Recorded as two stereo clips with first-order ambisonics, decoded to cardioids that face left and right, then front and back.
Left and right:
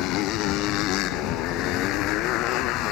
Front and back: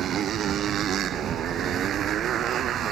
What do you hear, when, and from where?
0.0 s a motorcycle: 125° left